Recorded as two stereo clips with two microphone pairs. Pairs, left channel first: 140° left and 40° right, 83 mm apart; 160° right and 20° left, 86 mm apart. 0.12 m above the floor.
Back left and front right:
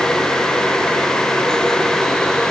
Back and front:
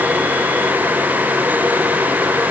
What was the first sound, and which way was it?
Only background noise.